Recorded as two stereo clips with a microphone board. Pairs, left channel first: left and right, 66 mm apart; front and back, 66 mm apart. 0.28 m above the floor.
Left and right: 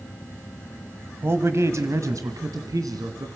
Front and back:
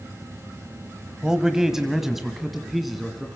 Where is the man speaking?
105° right, 1.2 m; by 3.3 s 90° right, 2.5 m.